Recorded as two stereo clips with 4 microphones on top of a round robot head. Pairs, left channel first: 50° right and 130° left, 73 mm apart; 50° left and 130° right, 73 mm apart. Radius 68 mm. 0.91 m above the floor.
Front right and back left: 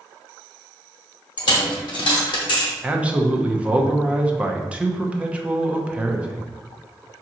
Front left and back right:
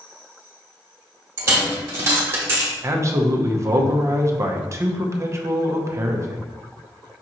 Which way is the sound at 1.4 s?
75° right.